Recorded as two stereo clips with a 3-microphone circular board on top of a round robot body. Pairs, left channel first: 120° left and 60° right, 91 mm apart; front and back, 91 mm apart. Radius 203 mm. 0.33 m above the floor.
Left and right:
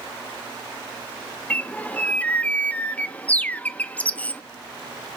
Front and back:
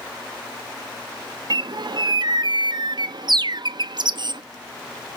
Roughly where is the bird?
Behind.